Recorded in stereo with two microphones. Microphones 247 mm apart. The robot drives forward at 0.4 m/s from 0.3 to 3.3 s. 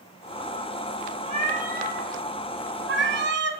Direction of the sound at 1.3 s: 25° right (ahead or behind).